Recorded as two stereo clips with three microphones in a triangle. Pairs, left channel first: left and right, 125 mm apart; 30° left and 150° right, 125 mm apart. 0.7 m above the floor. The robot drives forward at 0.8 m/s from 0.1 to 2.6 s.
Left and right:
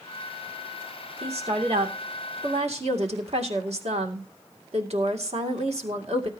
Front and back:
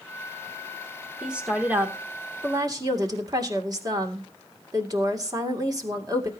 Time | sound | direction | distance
1.2 | a woman speaking | 65° right | 2.5 m